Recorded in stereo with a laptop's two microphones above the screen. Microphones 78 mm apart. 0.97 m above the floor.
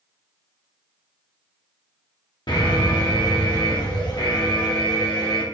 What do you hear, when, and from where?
2.5 s an alarm: 70° left (ahead or behind), 2 m